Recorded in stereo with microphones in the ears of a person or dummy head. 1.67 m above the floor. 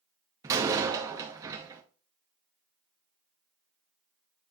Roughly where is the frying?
I don't hear frying.